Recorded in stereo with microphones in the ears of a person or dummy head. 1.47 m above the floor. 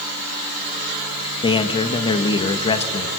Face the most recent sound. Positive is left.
turn(degrees=30)  # may be behind; listen again after turning